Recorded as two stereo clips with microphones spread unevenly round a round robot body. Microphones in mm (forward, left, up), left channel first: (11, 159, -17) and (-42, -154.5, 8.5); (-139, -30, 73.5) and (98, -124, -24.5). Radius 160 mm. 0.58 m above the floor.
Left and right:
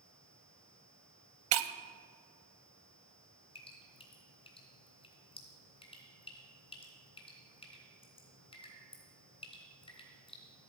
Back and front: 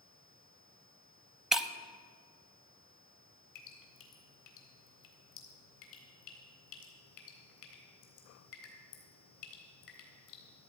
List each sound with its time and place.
1.5 s breaking glass: 120° right, 0.7 m
3.5 s dripping: 155° left, 3 m